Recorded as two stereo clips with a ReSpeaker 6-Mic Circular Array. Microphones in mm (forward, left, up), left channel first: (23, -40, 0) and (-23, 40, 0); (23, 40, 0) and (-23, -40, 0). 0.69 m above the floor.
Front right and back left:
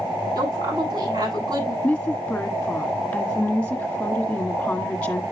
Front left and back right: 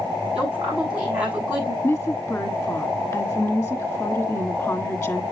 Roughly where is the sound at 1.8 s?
Ahead.